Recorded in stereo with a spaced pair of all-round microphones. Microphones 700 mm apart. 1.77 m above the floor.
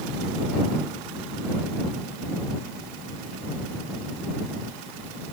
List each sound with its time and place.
Only background noise.